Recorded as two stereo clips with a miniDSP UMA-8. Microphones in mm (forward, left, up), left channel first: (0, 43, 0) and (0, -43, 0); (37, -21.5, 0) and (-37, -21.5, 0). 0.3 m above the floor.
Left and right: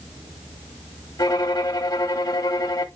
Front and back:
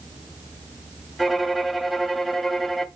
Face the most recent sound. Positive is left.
turn(degrees=90)